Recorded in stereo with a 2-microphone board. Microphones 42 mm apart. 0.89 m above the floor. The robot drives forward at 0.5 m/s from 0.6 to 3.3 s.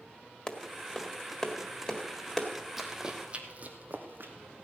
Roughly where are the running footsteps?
Centre.